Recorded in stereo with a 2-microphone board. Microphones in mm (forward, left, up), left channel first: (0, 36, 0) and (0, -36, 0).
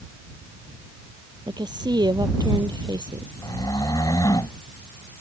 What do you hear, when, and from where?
1.5 s a woman speaking: 80° right
3.4 s snoring: 60° left (ahead or behind)